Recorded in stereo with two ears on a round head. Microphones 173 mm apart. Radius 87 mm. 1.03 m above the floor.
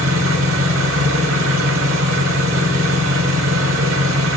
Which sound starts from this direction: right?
An engine running, at 0.0 s.